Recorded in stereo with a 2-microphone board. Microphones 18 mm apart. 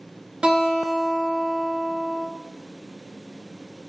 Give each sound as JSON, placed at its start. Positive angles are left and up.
{"t": 0.4, "sound": "a guitar", "side_deg": -60, "distance_m": 0.6}